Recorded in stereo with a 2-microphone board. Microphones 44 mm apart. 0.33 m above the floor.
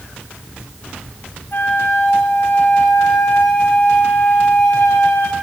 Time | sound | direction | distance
1.5 | a flute | 55° left (ahead or behind) | 1.2 m